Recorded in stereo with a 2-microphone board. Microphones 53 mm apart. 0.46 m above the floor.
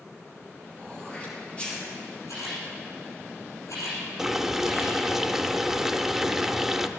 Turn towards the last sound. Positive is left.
turn(degrees=-10)  # may be behind; listen again after turning